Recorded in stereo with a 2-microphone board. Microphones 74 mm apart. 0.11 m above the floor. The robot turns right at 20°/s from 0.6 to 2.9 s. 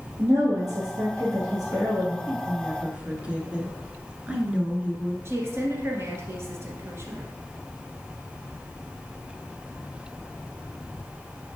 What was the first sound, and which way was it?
A woman speaking, 85° right.